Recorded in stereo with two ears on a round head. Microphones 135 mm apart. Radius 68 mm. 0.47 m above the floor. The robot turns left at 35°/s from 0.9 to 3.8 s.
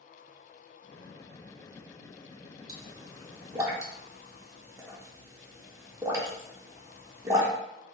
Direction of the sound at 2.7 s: 25° right (ahead or behind).